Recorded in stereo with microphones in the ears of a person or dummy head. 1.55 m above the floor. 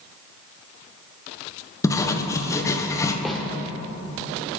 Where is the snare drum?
5° left (ahead or behind), 1.7 m.